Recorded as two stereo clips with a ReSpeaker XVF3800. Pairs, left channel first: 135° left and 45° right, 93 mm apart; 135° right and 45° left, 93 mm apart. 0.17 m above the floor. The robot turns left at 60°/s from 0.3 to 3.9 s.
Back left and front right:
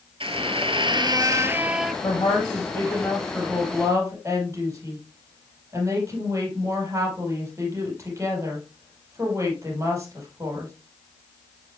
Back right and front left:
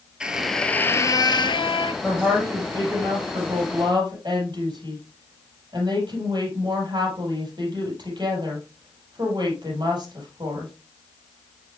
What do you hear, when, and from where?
0.2 s a squeak: 35° right, 0.7 m; by 1.9 s 135° right, 0.7 m
2.0 s a woman speaking: 125° left, 4.5 m; by 10.7 s 10° left, 4.5 m